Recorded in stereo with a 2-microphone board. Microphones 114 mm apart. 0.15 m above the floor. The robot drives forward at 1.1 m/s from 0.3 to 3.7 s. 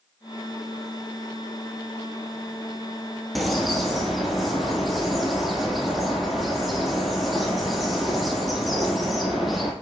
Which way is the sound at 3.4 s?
Centre (ahead or behind).